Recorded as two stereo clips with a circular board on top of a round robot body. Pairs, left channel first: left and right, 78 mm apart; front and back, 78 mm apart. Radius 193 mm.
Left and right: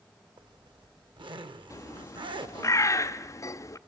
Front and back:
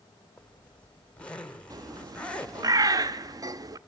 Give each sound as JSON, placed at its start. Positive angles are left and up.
{"t": 0.4, "sound": "a zipper", "azimuth_deg": -75, "distance_m": 1.2}
{"t": 1.7, "sound": "a bird", "azimuth_deg": 140, "distance_m": 0.7}